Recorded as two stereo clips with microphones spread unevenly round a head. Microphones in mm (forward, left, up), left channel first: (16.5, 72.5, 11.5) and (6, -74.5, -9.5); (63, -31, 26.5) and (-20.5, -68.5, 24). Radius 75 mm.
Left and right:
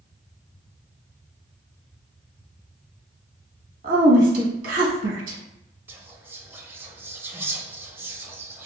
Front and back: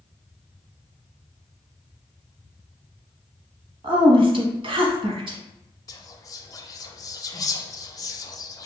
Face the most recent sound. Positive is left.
turn(degrees=-25)